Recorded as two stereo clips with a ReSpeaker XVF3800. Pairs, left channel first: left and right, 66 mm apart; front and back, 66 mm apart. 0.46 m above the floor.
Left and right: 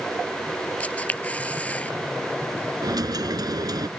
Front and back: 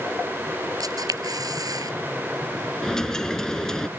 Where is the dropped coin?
80° right.